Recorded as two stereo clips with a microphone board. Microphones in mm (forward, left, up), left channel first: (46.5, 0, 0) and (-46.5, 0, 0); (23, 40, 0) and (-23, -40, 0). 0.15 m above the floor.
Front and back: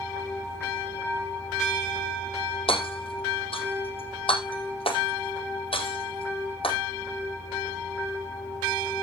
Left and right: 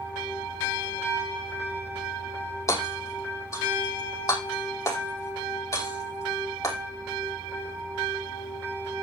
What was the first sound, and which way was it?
Hammering, 5° left.